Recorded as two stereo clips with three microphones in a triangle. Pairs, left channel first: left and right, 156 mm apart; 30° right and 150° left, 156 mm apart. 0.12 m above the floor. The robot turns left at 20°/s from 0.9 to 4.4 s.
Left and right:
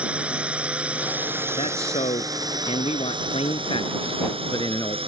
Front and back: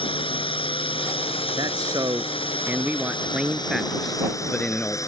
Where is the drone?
15° right; by 5.1 s 85° right.